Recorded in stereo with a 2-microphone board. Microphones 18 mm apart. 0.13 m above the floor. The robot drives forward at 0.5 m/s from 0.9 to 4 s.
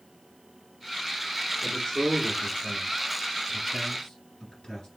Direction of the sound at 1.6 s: 30° left (ahead or behind).